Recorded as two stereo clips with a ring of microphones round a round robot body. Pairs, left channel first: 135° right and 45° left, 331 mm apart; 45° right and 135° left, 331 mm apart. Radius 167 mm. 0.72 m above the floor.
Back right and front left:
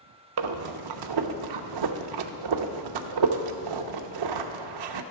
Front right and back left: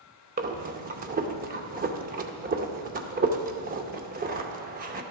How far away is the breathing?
About 0.6 m.